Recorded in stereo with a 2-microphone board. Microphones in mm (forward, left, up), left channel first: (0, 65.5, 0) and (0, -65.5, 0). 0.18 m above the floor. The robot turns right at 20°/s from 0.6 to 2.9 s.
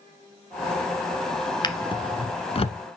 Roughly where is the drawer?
Left.